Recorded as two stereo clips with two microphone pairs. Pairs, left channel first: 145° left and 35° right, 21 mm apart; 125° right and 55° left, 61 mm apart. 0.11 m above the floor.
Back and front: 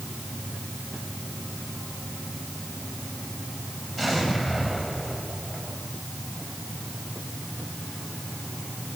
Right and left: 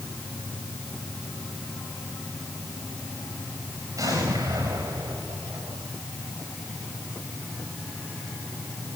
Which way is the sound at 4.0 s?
75° left.